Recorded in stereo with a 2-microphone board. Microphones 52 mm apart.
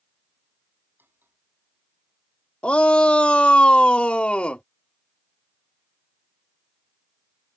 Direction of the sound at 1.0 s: 40° right (ahead or behind).